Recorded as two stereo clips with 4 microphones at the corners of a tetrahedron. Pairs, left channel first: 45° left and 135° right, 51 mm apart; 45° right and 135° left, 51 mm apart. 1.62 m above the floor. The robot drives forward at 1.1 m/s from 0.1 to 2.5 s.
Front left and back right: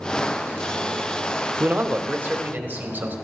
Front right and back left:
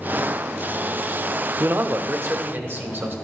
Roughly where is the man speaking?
Behind.